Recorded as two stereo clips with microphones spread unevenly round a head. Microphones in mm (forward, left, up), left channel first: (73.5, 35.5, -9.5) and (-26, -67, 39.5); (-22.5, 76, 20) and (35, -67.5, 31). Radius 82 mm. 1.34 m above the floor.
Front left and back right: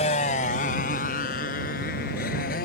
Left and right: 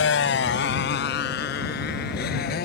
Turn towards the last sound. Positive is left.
turn(degrees=85)